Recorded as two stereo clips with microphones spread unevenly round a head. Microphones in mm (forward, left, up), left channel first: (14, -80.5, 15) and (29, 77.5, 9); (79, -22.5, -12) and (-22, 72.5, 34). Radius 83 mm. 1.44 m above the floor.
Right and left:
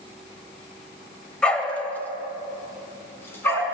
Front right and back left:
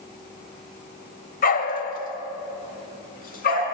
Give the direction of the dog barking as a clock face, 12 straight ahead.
12 o'clock.